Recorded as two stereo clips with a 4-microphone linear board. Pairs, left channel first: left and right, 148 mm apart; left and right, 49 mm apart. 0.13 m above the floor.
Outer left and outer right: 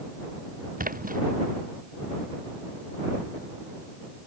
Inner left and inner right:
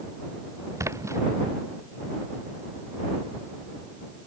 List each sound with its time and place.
0.8 s a splash: 70° right (ahead or behind)